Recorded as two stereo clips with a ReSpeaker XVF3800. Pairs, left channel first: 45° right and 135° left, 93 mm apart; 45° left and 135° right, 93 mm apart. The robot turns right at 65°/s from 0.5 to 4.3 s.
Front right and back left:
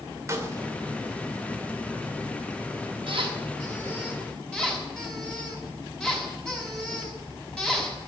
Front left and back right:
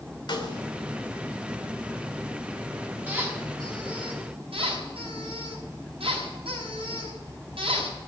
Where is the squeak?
155° left, 5.5 m; by 8.0 s 125° right, 5.5 m.